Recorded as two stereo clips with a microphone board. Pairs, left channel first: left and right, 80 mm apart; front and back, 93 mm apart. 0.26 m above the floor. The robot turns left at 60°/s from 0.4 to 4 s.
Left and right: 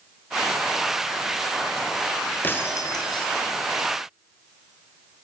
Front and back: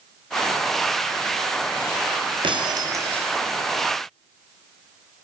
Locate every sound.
2.4 s breaking glass: 155° left, 4 m; by 3.3 s 110° left, 4 m